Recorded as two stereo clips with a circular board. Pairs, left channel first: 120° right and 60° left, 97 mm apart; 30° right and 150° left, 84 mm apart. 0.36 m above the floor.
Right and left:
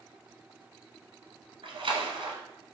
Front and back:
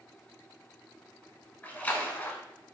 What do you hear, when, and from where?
1.6 s a splash: 40° left, 0.8 m